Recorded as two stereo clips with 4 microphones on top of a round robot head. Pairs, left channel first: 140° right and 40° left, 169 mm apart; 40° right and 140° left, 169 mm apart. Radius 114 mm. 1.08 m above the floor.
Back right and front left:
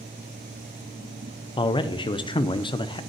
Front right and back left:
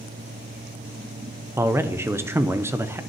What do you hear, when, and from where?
1.6 s a man speaking: 160° right, 0.6 m